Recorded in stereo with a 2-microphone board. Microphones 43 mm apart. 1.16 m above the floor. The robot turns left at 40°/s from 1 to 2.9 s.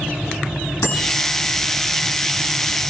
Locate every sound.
0.8 s a bicycle bell: 75° left (ahead or behind), 9 m; by 1.1 s 70° left (ahead or behind), 9 m